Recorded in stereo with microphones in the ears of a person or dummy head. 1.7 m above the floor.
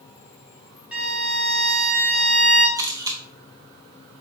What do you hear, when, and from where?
0.9 s a violin: 5° right (ahead or behind), 1.4 m
2.8 s a camera shutter: 20° right (ahead or behind), 0.5 m